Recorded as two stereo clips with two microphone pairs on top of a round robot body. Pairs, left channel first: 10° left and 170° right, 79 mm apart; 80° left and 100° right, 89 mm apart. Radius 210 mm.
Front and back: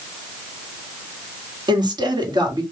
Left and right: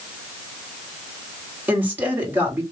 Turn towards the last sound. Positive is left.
turn(degrees=-170)